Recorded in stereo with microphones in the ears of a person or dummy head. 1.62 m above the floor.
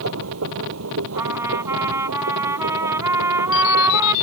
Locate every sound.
0.0 s a machine running: 80° right
1.1 s a trumpet: 15° right (ahead or behind)